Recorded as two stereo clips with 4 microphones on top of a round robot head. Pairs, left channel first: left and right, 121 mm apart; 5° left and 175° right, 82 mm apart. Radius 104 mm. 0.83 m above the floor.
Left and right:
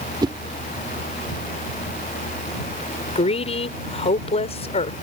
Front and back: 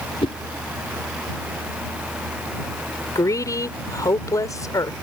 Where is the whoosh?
35° right.